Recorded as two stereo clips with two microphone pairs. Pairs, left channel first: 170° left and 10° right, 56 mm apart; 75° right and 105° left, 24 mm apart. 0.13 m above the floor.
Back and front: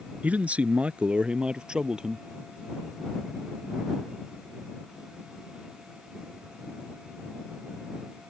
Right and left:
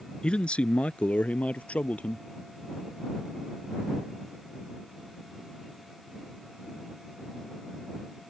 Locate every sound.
0.2 s a man speaking: 65° right; by 2.3 s 90° right